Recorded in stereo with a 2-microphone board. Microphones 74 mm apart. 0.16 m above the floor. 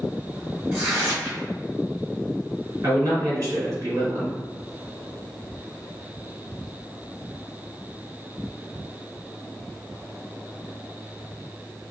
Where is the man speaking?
50° right (ahead or behind), 1.9 m.